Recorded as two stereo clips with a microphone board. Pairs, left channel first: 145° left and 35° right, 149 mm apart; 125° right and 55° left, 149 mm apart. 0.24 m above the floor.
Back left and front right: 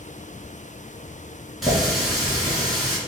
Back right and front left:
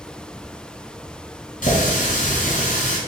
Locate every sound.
1.6 s a running tap: 125° right, 1.6 m